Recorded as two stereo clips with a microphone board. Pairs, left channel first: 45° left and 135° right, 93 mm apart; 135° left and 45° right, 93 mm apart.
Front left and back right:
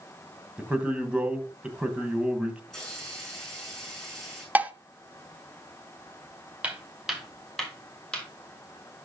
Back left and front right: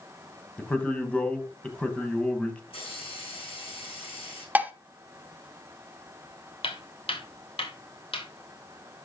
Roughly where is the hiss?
Behind left.